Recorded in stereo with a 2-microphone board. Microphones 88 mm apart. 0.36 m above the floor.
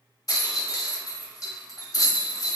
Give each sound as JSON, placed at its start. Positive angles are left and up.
{"t": 0.3, "sound": "a rattle", "side_deg": 45, "distance_m": 0.6}